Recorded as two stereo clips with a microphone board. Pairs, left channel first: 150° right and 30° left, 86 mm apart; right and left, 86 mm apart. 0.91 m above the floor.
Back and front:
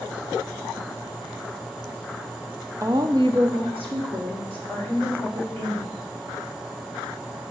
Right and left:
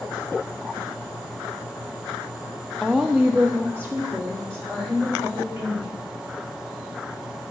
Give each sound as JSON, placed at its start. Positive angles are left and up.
{"t": 2.8, "sound": "a woman speaking", "azimuth_deg": -10, "distance_m": 0.5}